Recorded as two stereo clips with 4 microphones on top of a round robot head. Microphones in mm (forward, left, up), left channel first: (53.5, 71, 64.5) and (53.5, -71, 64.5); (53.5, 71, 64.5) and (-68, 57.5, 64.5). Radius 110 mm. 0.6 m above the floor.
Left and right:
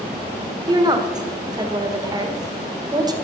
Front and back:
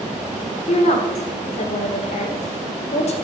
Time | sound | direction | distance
0.7 | a woman speaking | 30° right | 1.8 m